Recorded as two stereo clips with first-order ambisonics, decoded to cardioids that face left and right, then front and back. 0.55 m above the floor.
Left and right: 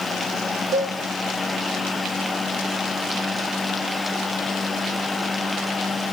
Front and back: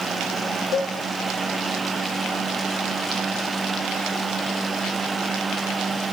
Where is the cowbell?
50° right, 0.5 m.